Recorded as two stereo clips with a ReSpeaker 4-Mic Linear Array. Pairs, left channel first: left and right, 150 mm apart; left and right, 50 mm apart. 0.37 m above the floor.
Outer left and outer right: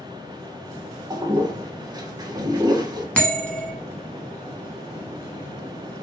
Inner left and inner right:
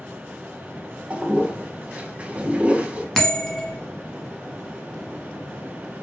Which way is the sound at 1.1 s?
25° right (ahead or behind).